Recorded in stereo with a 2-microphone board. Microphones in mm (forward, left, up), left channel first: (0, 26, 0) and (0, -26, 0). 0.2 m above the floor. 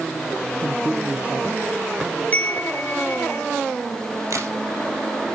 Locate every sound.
0.6 s a man speaking: 30° right (ahead or behind), 3.5 m
2.3 s a chime: 30° left (ahead or behind), 1.8 m
4.3 s a crack: 70° right (ahead or behind), 4 m